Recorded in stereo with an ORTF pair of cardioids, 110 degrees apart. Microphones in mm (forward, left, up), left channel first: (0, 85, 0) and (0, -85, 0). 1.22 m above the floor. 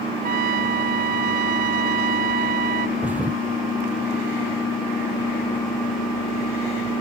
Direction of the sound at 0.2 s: 60° right.